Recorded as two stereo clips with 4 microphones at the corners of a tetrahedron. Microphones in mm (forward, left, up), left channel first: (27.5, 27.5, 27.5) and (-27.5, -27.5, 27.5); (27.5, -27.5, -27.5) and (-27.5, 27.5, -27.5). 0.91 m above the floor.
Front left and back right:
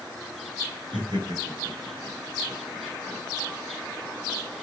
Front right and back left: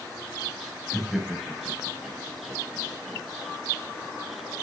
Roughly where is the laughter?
Behind right.